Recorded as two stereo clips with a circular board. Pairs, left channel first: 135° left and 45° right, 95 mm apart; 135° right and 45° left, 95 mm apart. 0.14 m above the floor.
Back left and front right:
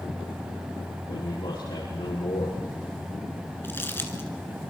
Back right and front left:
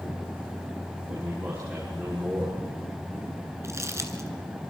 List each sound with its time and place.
1.1 s a man speaking: 110° left, 6.5 m
3.6 s crumpling: 80° left, 1.7 m